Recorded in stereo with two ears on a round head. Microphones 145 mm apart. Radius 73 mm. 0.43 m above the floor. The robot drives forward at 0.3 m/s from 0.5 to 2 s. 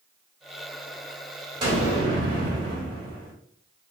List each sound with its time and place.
1.6 s an explosion: 30° right (ahead or behind), 1.4 m; by 3.3 s 25° right (ahead or behind), 1.5 m